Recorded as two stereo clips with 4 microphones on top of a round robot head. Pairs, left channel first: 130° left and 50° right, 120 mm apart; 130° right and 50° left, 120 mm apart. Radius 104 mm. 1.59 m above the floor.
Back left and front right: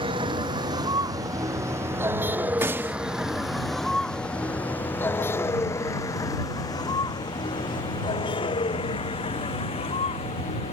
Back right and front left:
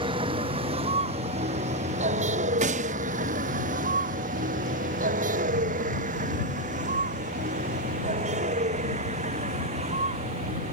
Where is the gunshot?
25° left.